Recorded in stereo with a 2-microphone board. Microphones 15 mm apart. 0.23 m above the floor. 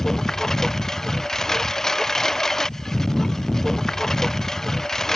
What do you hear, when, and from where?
0.0 s a lawn mower: 30° left (ahead or behind)